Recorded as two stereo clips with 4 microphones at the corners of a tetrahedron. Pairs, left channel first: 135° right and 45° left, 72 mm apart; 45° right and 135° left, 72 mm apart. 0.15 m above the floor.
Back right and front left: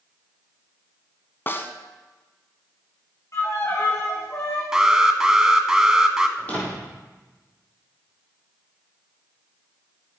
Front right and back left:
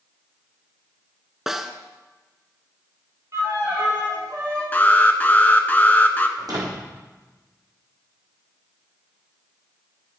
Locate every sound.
1.5 s a snare drum: 145° right, 1.0 m
3.3 s a violin: straight behind, 4.5 m
4.7 s an alarm: 25° right, 1.1 m
6.4 s a door slam: 160° left, 4.5 m